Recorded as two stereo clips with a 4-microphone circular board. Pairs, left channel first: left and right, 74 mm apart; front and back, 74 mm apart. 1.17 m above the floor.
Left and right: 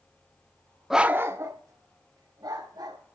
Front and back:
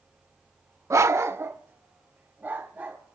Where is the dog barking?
175° right, 0.7 m; by 3.0 s 110° right, 3.5 m.